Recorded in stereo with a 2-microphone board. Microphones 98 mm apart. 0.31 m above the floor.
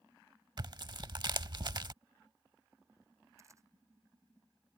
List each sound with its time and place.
0.6 s tearing paper: 50° right (ahead or behind)
3.4 s a camera shutter: 30° right (ahead or behind)